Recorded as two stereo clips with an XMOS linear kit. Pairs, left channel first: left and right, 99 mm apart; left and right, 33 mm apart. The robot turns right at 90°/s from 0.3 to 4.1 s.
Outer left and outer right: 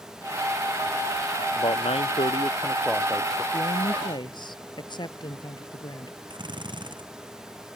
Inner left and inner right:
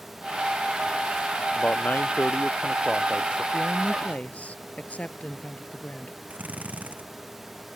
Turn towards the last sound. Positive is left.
turn(degrees=-50)  # may be behind; listen again after turning